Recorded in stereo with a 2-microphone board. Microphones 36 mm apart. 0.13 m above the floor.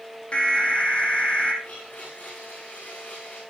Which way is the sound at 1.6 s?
45° left (ahead or behind).